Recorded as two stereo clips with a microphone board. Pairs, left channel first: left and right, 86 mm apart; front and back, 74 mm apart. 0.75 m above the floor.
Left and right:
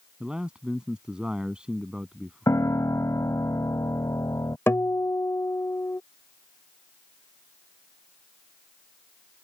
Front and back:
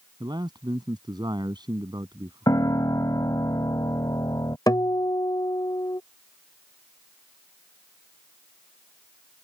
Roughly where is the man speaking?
Behind.